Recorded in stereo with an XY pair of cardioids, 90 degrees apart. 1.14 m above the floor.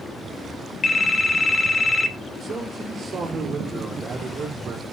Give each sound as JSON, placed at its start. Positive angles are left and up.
{"t": 0.8, "sound": "a phone ringing", "azimuth_deg": 35, "distance_m": 1.1}
{"t": 2.4, "sound": "a man speaking", "azimuth_deg": -55, "distance_m": 3.0}